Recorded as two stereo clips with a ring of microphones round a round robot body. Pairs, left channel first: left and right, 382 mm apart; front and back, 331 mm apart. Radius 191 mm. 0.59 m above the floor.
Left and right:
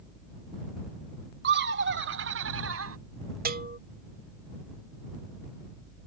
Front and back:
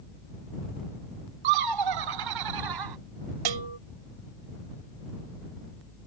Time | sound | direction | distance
1.4 | laughter | 155° right | ?
3.5 | a bell | 155° right | ?